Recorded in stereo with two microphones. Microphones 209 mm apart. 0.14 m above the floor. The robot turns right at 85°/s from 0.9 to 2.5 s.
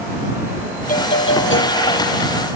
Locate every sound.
0.9 s a doorbell: 45° left; by 2.6 s straight behind